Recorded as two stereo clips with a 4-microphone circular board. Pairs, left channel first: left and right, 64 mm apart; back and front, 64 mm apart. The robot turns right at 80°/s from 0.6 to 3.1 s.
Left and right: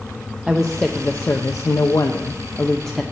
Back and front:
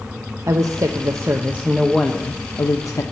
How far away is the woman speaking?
About 0.6 m.